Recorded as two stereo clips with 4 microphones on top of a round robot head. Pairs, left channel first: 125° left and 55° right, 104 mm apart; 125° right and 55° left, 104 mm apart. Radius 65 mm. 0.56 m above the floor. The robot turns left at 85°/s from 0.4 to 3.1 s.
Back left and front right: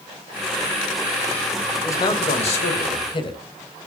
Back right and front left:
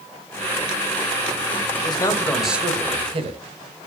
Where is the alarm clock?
No alarm clock in this recording.